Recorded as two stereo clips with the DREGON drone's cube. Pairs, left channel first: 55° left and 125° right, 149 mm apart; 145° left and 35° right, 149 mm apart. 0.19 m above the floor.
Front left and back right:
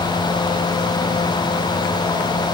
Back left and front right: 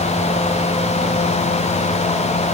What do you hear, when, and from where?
Only background noise.